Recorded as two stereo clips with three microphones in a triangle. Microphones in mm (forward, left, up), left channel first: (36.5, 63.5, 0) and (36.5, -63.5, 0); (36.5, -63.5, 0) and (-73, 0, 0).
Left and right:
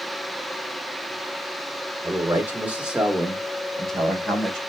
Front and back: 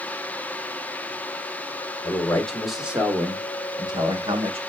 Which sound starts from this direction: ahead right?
A man speaking, at 2.0 s.